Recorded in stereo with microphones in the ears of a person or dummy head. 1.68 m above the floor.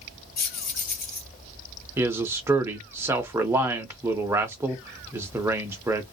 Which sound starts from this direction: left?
Keys jangling, at 0.4 s.